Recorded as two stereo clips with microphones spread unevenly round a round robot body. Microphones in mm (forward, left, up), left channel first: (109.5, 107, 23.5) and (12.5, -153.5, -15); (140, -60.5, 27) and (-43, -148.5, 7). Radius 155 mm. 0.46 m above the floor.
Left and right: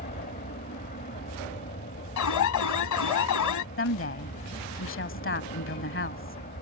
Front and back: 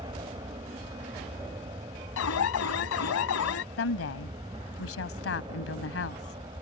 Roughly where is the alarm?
Ahead left.